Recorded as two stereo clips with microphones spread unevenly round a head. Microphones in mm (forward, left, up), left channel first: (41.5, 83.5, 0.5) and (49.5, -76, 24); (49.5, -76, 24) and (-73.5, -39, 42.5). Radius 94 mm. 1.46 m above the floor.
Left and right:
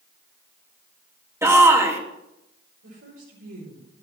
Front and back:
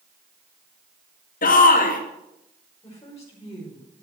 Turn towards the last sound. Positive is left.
turn(degrees=-80)